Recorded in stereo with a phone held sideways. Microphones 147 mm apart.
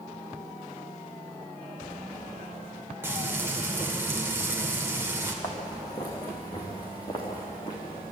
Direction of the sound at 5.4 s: 25° left (ahead or behind).